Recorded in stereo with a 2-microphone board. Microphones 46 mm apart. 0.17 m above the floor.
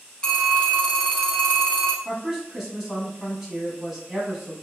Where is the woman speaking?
10° right (ahead or behind), 1.1 m.